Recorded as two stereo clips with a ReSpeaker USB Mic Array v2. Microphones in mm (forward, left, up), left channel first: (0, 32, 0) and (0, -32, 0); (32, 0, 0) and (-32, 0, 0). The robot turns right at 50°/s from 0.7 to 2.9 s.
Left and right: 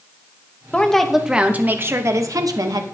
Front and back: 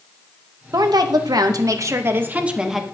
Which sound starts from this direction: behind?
A woman speaking, at 0.7 s.